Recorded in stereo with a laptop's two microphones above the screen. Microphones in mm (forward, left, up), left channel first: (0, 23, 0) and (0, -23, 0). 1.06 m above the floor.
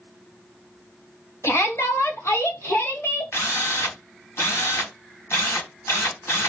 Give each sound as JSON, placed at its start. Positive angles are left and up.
{"t": 1.4, "sound": "a shout", "side_deg": 75, "distance_m": 2.5}
{"t": 3.3, "sound": "a drill", "side_deg": 75, "distance_m": 3.5}